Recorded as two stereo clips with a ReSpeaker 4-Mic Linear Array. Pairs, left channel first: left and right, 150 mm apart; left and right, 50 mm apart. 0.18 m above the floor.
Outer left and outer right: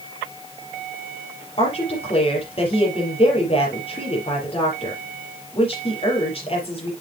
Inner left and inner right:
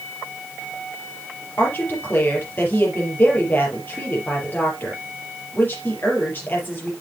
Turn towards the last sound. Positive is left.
turn(degrees=40)  # may be behind; listen again after turning